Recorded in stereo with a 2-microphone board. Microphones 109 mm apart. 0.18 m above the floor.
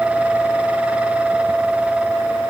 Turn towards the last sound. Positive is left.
No sound to turn to.